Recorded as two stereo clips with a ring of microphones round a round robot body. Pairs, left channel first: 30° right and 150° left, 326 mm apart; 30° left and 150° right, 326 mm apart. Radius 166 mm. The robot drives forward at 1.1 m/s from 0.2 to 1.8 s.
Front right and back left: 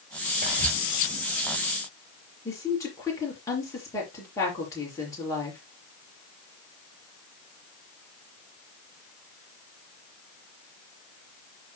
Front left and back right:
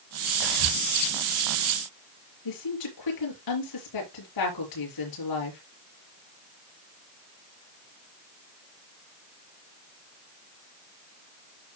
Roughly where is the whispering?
Behind right.